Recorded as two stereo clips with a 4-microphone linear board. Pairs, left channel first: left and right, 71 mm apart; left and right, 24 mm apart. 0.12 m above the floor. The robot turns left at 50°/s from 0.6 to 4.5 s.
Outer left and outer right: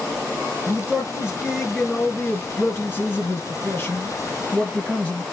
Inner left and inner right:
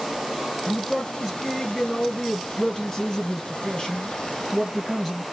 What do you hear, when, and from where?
0.7 s a man speaking: 125° right, 1.6 m; by 5.2 s 45° left, 1.6 m